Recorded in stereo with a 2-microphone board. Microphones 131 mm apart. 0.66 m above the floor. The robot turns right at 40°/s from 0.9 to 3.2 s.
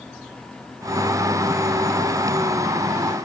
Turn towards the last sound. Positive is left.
No sound to turn to.